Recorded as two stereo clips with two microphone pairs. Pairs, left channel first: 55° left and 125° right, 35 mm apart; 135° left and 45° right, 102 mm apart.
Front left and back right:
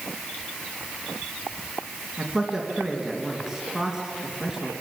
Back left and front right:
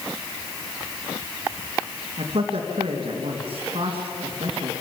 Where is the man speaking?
40° right, 3 m.